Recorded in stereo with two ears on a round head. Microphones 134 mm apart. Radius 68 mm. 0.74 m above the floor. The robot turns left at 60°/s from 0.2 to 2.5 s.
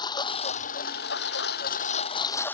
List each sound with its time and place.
0.0 s a lawn mower: 150° left; by 2.5 s 10° left